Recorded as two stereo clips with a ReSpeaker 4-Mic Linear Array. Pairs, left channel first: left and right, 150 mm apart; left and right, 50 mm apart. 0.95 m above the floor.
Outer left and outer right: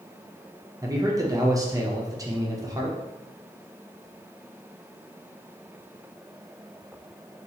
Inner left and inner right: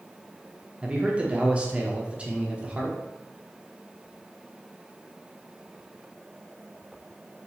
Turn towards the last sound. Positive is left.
turn(degrees=-25)  # may be behind; listen again after turning